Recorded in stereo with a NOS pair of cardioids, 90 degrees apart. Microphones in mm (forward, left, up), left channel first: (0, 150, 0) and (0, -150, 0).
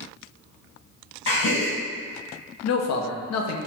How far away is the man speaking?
About 0.6 m.